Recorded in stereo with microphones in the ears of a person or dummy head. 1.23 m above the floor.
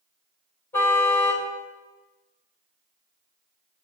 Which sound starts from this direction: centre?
A car horn, at 0.7 s.